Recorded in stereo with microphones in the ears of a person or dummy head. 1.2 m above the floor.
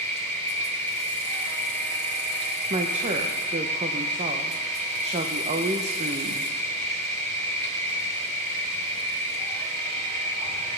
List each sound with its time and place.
0.0 s an insect: 50° right (ahead or behind), 3.5 m
2.7 s a woman speaking: 35° right (ahead or behind), 0.7 m